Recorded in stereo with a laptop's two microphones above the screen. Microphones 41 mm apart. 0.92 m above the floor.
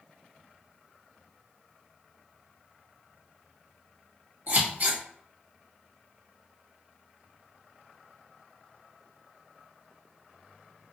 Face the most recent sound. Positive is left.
turn(degrees=-55)  # may be behind; listen again after turning